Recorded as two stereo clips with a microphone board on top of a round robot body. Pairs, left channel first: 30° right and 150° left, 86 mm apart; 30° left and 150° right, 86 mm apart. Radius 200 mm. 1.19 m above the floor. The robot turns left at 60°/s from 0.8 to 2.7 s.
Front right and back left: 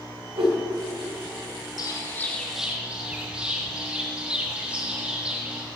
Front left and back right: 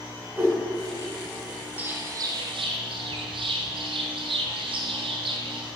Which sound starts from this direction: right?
A bird, at 1.8 s.